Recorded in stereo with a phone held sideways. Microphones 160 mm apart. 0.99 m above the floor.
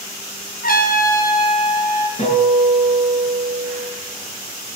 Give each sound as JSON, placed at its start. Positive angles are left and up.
{"t": 0.6, "sound": "a trumpet", "side_deg": 65, "distance_m": 2.5}
{"t": 2.2, "sound": "a guitar", "side_deg": 50, "distance_m": 9.0}